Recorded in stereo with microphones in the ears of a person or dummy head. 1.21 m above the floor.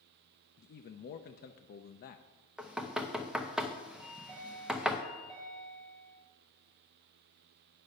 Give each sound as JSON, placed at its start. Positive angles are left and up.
{"t": 0.6, "sound": "a man speaking", "side_deg": 50, "distance_m": 0.6}
{"t": 2.6, "sound": "knocking", "side_deg": 0, "distance_m": 0.8}
{"t": 4.0, "sound": "a chime", "side_deg": -5, "distance_m": 4.5}